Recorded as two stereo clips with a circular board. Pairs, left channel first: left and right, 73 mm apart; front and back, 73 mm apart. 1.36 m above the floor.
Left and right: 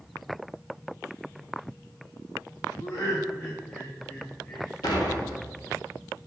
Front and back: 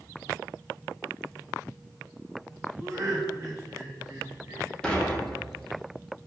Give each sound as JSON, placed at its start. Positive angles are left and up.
{"t": 2.8, "sound": "laughter", "azimuth_deg": 125, "distance_m": 1.0}
{"t": 4.8, "sound": "dishes clattering", "azimuth_deg": 80, "distance_m": 1.3}